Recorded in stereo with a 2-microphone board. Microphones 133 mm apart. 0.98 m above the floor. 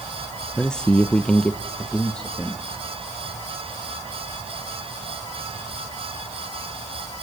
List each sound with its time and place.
0.6 s a man speaking: 5° left (ahead or behind), 0.7 m